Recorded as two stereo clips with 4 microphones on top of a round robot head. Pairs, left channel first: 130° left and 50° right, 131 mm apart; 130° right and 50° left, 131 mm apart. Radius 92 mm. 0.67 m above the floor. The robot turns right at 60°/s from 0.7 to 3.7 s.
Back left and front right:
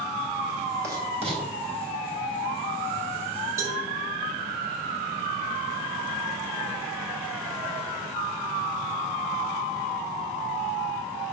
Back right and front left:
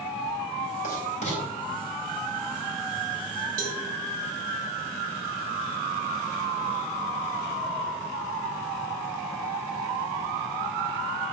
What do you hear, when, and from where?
0.8 s writing: 115° right, 3.5 m; by 1.4 s 80° right, 3.5 m
3.6 s a cowbell: 20° left, 1.9 m; by 3.8 s 25° left, 1.9 m